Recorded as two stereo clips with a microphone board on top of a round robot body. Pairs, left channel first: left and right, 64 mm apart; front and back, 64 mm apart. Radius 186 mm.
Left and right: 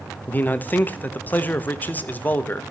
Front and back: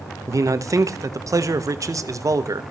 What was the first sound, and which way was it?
A man speaking, 150° left.